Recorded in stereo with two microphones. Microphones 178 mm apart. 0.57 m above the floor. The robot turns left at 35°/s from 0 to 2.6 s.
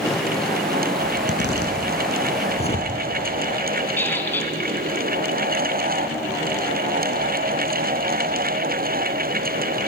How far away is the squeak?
About 3 m.